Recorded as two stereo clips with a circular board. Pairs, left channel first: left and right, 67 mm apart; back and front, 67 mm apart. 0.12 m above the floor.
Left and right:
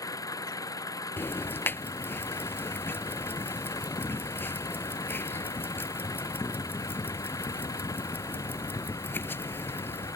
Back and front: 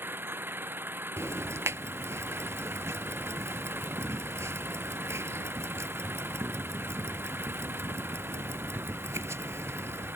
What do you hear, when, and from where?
0.0 s an engine running: 60° left
1.2 s ticking: 40° left